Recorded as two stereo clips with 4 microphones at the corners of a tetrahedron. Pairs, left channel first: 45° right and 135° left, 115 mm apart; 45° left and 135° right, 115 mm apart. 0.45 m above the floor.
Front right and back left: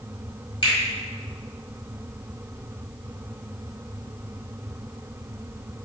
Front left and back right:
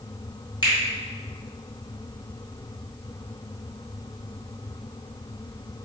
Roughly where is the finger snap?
Ahead.